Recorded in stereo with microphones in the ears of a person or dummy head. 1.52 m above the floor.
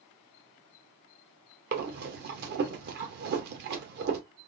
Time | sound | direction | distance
1.7 | breathing | 55° right (ahead or behind) | 0.8 m